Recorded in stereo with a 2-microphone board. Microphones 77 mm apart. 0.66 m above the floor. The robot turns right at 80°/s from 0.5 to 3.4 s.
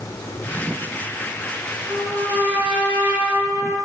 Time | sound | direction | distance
1.9 | a trumpet | 135° right | 3 m